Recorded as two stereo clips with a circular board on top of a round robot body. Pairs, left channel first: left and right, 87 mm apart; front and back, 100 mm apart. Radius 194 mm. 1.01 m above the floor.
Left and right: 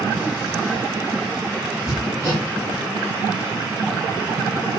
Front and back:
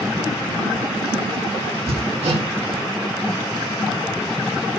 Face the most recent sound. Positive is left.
turn(degrees=-175)